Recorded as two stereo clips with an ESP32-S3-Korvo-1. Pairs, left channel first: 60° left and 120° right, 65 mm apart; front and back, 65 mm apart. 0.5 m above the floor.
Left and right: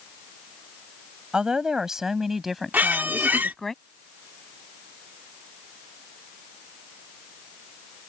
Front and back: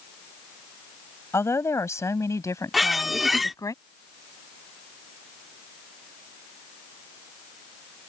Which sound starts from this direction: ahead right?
A woman speaking, at 1.3 s.